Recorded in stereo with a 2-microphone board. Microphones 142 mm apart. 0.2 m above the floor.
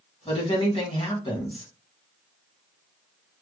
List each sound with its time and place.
0.2 s a woman speaking: 40° left (ahead or behind), 1.5 m